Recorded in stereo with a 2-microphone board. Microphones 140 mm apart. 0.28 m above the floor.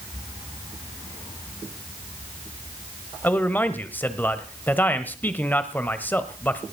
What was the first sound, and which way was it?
A man speaking, 15° left (ahead or behind).